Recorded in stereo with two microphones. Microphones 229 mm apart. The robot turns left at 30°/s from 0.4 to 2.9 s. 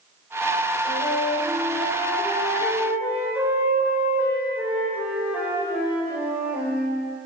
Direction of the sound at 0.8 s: 55° left.